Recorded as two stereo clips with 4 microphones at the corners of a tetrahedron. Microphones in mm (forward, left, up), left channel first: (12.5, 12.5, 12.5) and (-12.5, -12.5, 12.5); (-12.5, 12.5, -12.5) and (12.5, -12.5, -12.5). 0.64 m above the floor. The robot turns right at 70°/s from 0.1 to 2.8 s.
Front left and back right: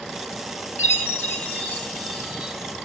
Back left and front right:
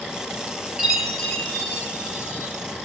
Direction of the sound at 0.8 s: 30° left.